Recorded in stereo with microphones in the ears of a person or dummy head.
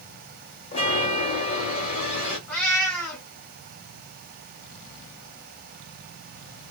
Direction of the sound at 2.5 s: Centre (ahead or behind).